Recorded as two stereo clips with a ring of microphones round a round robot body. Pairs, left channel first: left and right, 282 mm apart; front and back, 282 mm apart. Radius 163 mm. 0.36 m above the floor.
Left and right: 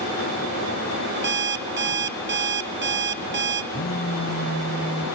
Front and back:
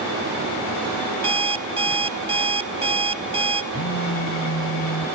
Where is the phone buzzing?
30° left, 1.7 m.